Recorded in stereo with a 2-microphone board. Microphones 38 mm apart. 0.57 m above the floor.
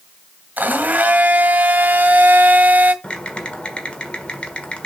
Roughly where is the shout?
No shout in this recording.